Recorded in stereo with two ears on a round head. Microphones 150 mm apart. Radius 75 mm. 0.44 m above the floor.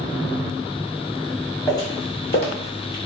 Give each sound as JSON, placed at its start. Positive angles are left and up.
{"t": 1.7, "sound": "footsteps", "side_deg": 20, "distance_m": 1.3}